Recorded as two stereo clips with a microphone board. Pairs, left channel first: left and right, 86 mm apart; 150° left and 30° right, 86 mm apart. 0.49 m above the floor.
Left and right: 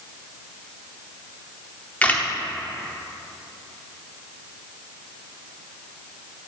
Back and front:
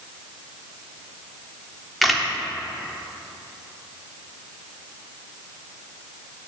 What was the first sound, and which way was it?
A camera shutter, 60° left.